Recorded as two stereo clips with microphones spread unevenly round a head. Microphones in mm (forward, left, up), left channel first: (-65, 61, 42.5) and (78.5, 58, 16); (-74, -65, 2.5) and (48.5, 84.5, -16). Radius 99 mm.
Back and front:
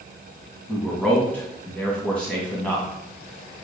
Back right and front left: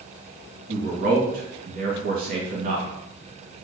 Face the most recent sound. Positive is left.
turn(degrees=95)